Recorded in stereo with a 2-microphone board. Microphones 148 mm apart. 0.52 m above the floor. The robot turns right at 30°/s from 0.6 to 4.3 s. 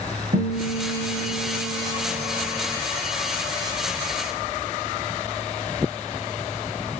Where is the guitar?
80° right, 3.5 m; by 2.8 s 15° right, 3.5 m.